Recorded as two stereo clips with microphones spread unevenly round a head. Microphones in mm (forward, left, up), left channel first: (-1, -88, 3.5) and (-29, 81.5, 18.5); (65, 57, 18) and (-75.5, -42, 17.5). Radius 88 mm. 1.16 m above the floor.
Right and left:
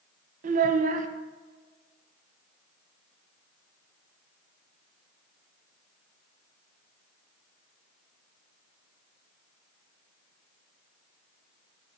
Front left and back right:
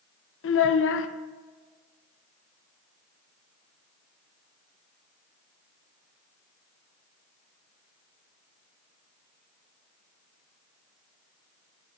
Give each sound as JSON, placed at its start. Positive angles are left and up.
{"t": 0.4, "sound": "a child speaking", "azimuth_deg": 50, "distance_m": 0.5}